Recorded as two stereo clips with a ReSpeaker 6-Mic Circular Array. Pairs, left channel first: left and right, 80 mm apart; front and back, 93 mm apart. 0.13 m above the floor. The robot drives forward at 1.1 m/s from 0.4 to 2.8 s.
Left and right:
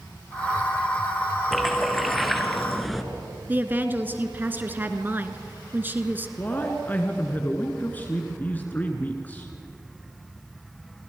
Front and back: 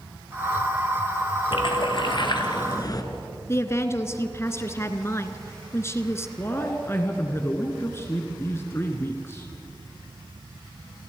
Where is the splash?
Straight ahead, 3 m.